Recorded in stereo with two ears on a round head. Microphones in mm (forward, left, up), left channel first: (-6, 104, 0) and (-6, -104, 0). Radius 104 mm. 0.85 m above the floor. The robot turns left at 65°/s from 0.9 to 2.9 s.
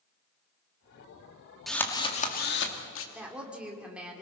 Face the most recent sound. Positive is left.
turn(degrees=-5)  # may be behind; listen again after turning